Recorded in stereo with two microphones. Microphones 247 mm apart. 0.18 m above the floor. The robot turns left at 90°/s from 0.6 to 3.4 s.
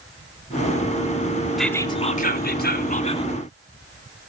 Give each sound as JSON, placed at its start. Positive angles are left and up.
{"t": 1.6, "sound": "whispering", "azimuth_deg": 180, "distance_m": 1.5}